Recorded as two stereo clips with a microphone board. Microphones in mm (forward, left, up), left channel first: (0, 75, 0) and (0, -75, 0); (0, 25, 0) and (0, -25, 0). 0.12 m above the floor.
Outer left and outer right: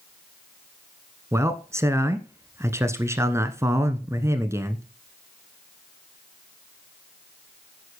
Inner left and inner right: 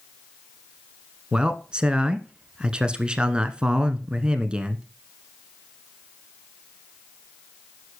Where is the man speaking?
20° right (ahead or behind), 1.2 m.